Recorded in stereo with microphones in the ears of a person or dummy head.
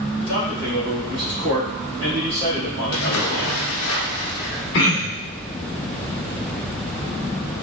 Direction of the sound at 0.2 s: 75° right (ahead or behind).